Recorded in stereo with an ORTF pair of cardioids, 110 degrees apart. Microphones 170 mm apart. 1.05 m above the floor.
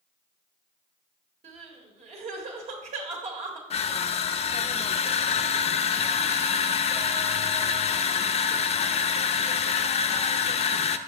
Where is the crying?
50° right, 1.7 m.